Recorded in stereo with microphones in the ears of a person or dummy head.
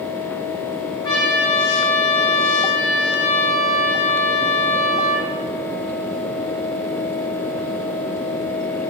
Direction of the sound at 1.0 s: 20° left (ahead or behind).